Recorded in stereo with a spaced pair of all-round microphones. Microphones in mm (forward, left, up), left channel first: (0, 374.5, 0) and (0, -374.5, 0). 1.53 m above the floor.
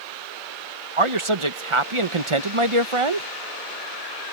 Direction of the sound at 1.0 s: 40° right (ahead or behind).